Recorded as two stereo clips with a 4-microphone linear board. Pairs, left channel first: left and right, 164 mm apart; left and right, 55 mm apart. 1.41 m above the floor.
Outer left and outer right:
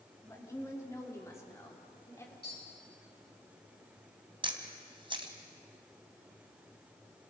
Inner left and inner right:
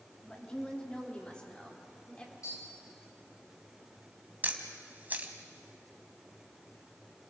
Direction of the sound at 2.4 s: 70° left (ahead or behind).